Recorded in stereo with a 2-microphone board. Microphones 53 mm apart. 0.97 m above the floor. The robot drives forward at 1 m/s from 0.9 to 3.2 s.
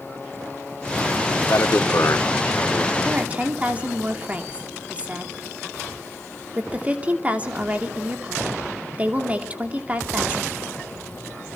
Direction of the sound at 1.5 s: 65° left (ahead or behind).